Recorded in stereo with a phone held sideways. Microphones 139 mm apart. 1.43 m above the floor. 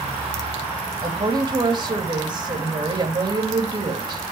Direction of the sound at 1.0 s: 35° right (ahead or behind).